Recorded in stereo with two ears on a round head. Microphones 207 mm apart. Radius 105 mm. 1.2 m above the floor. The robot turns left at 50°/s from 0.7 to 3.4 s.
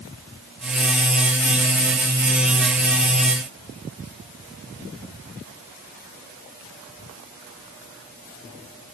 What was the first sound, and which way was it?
Only background noise.